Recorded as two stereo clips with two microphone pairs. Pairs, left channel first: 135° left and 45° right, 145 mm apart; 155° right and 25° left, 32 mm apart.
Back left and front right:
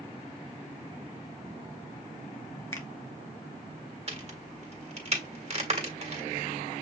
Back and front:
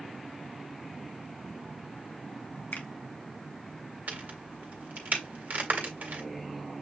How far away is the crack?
About 1.6 m.